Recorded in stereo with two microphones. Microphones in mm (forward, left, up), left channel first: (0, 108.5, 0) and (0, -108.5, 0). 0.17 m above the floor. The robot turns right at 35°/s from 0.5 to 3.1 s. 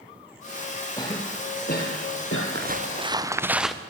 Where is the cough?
15° left (ahead or behind), 4.5 m; by 2.5 s 65° left (ahead or behind), 4.5 m.